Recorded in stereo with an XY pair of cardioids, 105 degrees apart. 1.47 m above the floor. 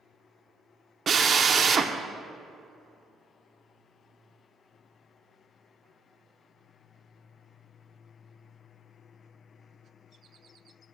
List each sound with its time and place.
1.1 s a drill: 45° right, 0.7 m